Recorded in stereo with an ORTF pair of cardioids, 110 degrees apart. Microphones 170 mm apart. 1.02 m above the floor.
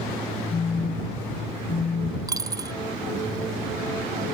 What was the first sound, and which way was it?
A phone buzzing, 30° left.